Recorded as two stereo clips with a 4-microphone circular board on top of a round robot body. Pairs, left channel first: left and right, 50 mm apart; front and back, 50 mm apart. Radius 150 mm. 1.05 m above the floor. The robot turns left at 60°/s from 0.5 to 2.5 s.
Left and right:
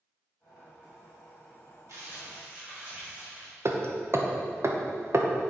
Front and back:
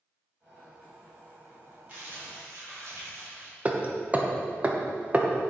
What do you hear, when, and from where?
1.9 s crumpling: 120° right, 3.5 m; by 3.5 s 160° right, 3.5 m
3.6 s hammering: 120° right, 1.1 m